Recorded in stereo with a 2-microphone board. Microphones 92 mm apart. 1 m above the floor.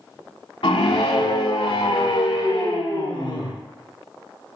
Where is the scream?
70° left (ahead or behind), 2.5 m; by 3.5 s 55° left (ahead or behind), 4.5 m.